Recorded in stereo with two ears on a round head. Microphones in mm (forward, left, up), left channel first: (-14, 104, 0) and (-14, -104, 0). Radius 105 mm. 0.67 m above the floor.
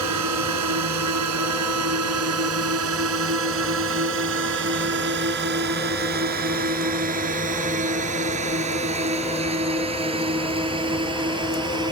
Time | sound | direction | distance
0.0 | a drone | 80° right | ?